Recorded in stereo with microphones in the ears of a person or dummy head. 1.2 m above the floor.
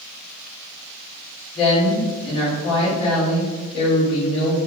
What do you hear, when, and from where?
1.6 s a woman speaking: 35° left (ahead or behind), 1.8 m